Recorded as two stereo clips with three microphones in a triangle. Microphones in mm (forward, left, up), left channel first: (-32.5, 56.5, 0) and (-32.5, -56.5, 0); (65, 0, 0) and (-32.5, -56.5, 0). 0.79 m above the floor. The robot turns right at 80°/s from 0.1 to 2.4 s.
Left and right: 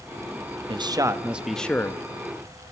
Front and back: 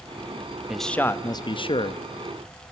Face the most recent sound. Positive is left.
turn(degrees=70)